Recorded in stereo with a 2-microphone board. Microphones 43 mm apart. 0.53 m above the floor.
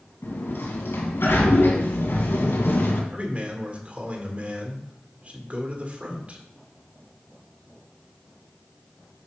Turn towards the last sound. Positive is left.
turn(degrees=-35)  # may be behind; listen again after turning